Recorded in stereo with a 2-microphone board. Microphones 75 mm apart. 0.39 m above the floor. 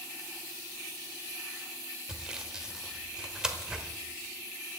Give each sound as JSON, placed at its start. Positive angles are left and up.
{"t": 2.1, "sound": "sawing", "side_deg": -10, "distance_m": 1.3}